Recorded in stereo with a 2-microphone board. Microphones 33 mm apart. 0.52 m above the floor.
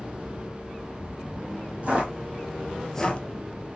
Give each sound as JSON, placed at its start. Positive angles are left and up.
{"t": 1.8, "sound": "footsteps", "side_deg": -45, "distance_m": 1.3}